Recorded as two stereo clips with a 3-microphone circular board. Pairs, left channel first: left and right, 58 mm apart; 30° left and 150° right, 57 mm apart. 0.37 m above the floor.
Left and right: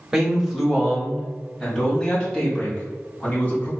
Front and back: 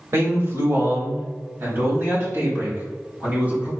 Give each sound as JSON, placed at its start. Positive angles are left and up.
{"t": 0.1, "sound": "a man speaking", "azimuth_deg": -165, "distance_m": 1.2}